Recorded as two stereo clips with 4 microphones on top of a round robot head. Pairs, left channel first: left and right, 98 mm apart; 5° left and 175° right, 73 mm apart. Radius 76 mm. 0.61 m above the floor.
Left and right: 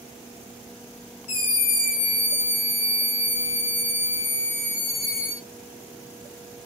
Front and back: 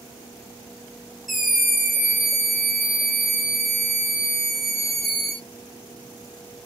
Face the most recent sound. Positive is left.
turn(degrees=100)